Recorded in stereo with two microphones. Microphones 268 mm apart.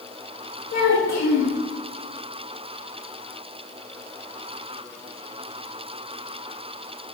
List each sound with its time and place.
0.7 s a child speaking: 80° left, 1.2 m